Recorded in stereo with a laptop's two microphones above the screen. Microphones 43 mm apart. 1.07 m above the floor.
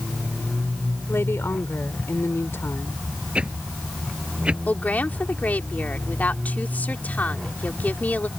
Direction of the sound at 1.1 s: 80° left.